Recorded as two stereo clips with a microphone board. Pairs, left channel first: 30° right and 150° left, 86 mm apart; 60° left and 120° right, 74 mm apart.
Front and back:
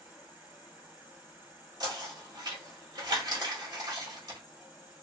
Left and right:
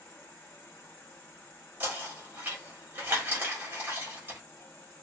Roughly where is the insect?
Left.